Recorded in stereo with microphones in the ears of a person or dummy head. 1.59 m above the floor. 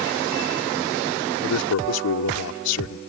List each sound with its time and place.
1.4 s a man speaking: 90° left